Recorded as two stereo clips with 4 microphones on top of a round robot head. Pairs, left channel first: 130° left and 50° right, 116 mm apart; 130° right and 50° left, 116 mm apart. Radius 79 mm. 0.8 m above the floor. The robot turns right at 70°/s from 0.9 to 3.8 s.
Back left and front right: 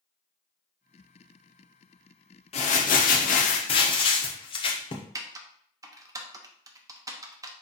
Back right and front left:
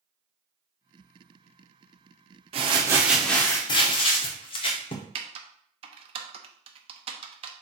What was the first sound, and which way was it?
Crumpling, 90° left.